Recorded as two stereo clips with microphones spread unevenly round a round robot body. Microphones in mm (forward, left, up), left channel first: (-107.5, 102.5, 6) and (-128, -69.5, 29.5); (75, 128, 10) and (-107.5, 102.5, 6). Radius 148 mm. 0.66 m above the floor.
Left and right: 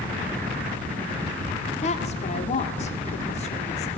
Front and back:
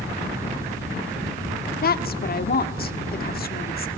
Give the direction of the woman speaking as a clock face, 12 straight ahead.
11 o'clock.